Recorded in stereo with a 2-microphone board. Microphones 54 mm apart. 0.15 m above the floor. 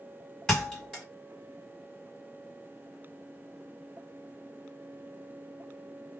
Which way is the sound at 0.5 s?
10° left (ahead or behind).